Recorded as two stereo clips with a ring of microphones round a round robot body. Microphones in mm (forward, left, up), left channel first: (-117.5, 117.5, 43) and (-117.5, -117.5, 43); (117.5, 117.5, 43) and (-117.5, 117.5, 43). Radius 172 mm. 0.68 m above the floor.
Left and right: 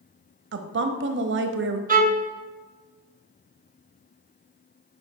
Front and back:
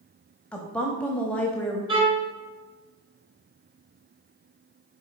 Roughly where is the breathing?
I don't hear breathing.